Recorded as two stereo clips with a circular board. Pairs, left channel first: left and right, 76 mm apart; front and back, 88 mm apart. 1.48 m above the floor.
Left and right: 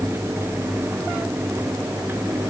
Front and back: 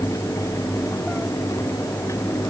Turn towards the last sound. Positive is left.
No sound to turn to.